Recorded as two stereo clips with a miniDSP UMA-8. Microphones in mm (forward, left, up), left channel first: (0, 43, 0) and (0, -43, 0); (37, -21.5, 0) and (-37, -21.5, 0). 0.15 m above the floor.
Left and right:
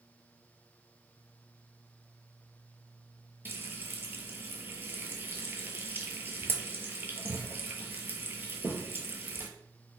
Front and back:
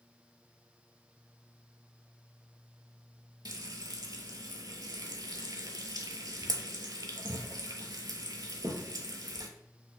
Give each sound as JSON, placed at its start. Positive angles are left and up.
{"t": 3.5, "sound": "frying", "azimuth_deg": -150, "distance_m": 0.6}